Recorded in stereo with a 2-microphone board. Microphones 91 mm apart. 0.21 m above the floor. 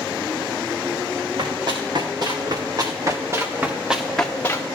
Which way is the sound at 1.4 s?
55° right (ahead or behind).